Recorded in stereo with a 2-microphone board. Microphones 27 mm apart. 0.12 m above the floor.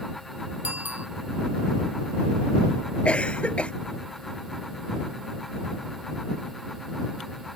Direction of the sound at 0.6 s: 80° right.